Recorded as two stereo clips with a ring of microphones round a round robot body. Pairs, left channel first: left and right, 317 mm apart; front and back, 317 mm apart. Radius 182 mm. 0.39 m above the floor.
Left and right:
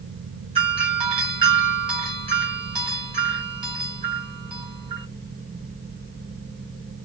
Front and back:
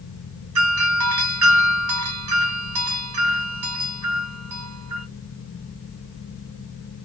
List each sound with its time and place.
0.6 s a doorbell: 160° right, 2.5 m